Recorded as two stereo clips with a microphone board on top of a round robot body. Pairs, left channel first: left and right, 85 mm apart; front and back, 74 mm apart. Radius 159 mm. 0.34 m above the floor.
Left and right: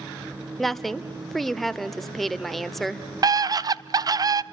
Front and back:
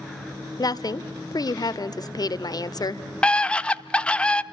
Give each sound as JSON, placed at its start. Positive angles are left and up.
{"t": 0.6, "sound": "a woman speaking", "azimuth_deg": 0, "distance_m": 1.6}
{"t": 3.2, "sound": "a scream", "azimuth_deg": -70, "distance_m": 1.1}